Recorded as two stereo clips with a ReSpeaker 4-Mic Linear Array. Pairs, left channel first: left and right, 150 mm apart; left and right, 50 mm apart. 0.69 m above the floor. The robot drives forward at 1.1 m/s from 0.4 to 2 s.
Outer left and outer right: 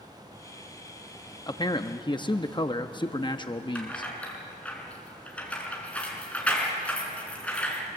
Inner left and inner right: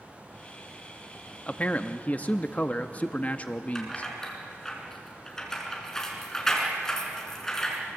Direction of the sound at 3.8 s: 10° left (ahead or behind).